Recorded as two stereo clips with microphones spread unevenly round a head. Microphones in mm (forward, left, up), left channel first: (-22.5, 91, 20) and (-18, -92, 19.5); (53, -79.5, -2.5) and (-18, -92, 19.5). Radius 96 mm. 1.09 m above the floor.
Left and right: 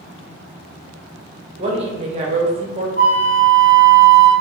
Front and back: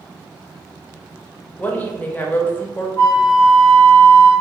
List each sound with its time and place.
1.6 s a woman speaking: 40° right, 0.8 m
3.0 s a flute: 75° left, 0.9 m